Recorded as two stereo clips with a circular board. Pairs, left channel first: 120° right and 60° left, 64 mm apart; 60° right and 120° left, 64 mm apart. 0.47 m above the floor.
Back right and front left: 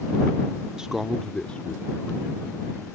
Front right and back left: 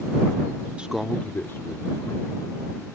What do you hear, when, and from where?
0.8 s a man speaking: 115° left; by 2.9 s 55° right